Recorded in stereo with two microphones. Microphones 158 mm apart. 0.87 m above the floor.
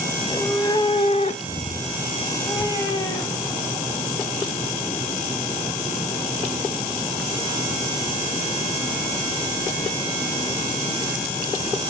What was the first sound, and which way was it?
A cat meowing, 15° left (ahead or behind).